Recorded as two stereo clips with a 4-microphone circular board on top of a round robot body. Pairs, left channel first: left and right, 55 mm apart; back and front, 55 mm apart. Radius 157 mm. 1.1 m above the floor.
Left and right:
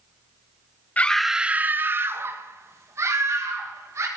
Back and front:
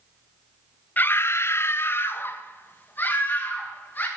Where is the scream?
140° left, 0.8 m; by 4.1 s 125° right, 4 m.